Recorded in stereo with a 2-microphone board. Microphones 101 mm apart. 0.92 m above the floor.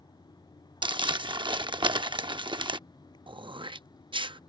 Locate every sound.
0.8 s crumpling: 50° right (ahead or behind)
3.3 s throat clearing: 55° right (ahead or behind)